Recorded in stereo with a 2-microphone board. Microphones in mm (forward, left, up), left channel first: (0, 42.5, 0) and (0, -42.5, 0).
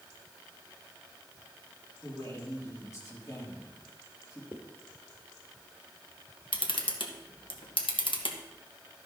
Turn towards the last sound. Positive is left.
turn(degrees=80)